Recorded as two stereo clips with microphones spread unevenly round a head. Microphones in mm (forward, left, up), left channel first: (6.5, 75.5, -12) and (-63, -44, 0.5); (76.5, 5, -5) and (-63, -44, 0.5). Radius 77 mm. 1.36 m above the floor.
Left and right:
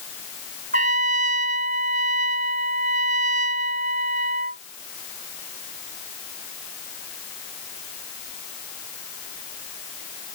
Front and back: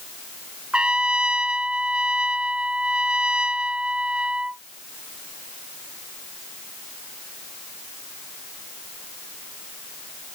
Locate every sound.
0.7 s a trumpet: 75° right